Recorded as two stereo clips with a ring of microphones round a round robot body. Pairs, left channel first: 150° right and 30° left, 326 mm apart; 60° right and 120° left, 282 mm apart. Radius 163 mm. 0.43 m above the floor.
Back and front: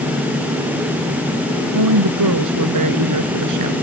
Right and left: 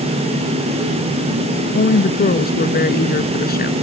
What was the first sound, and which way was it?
A woman speaking, 5° right.